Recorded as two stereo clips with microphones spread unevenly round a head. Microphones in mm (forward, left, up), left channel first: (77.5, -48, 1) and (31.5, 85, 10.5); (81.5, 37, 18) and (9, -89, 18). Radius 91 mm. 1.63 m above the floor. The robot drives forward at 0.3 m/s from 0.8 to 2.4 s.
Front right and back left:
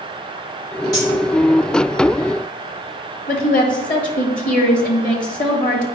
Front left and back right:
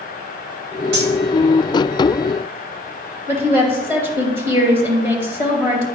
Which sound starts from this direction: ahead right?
A woman speaking, at 3.3 s.